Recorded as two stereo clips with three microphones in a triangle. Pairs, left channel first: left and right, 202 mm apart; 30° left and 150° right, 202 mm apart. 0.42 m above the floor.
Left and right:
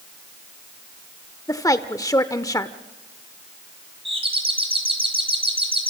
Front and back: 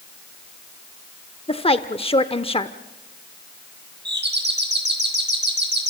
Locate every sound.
1.5 s a woman speaking: 40° left, 0.8 m
4.0 s a doorbell: 150° right, 3.5 m